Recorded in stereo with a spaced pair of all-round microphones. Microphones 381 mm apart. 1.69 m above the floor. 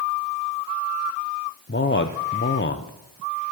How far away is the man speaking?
About 0.6 m.